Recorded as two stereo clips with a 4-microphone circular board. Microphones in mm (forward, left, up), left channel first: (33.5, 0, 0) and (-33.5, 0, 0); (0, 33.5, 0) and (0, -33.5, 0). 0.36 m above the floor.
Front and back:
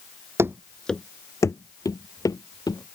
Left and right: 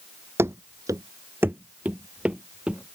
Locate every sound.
0.4 s running footsteps: 135° right; by 3.0 s 15° right